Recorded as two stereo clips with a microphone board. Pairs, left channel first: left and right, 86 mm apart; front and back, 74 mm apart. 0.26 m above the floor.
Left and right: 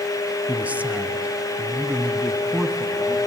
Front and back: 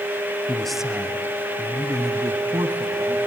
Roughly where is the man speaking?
Ahead right.